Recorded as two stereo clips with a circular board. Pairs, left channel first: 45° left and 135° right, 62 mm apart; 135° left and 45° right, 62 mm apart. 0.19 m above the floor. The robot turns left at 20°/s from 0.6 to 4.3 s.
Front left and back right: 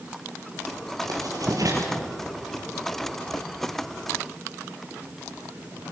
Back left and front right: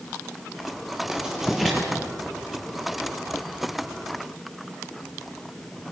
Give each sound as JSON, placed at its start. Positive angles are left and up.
{"t": 1.1, "sound": "writing", "azimuth_deg": -120, "distance_m": 4.0}